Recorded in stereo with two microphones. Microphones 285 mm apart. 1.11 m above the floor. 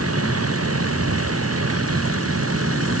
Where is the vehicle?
55° right (ahead or behind).